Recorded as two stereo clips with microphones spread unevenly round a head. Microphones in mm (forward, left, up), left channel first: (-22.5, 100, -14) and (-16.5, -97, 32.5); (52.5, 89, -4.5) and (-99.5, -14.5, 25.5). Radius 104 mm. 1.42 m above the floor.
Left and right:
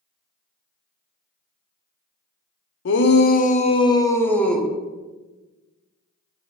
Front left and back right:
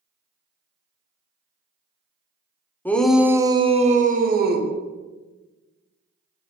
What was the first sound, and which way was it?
A shout, 115° left.